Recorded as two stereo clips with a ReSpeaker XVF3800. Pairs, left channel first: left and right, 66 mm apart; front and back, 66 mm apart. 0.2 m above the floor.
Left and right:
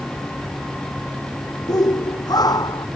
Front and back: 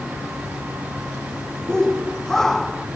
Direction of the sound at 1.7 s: 80° left.